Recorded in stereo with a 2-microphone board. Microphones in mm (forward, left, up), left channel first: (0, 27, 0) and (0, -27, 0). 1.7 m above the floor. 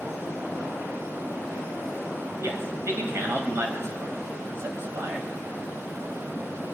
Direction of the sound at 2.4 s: 55° right (ahead or behind).